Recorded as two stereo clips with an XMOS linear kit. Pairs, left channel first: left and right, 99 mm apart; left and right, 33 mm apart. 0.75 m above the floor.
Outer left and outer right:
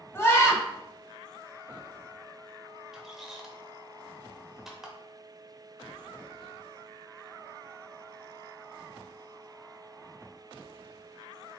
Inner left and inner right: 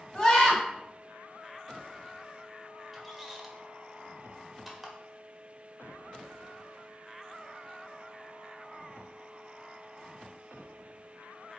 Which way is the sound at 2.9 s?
5° right (ahead or behind).